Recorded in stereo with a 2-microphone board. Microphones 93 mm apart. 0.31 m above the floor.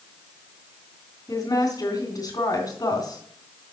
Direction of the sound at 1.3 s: 40° left (ahead or behind).